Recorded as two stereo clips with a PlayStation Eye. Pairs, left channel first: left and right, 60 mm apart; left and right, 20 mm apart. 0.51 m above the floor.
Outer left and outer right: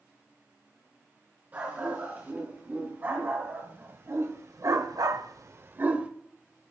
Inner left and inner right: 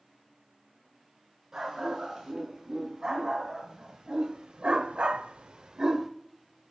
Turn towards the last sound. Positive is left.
turn(degrees=-20)  # may be behind; listen again after turning